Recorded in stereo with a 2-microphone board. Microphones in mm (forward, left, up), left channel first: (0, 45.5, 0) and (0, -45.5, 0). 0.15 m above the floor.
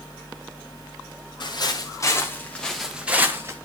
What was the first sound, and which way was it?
Footsteps, 55° left (ahead or behind).